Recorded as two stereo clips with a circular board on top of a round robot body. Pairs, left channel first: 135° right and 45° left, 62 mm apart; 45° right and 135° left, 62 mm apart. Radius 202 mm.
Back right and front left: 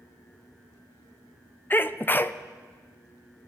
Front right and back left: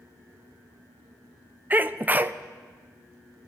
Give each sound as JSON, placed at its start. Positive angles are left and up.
{"t": 1.7, "sound": "a sneeze", "azimuth_deg": -175, "distance_m": 0.8}